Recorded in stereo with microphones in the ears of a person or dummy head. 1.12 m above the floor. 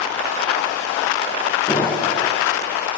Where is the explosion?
15° left (ahead or behind), 1.7 m.